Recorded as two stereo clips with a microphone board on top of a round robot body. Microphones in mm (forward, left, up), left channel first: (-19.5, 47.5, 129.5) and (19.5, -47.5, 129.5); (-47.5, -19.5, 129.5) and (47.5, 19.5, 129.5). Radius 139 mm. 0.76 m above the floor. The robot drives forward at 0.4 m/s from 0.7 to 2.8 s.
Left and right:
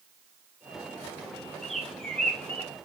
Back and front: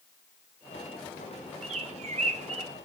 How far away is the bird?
About 1.3 m.